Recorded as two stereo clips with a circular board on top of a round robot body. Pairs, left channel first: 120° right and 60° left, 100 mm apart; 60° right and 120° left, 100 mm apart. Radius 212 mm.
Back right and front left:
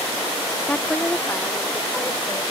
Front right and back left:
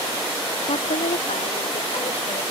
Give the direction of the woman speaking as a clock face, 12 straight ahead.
1 o'clock.